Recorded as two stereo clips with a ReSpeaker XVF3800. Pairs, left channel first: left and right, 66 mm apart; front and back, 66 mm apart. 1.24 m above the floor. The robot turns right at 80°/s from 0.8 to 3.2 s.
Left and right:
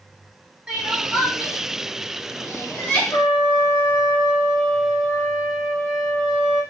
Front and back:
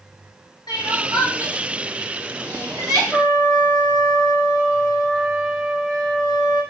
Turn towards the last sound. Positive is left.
turn(degrees=90)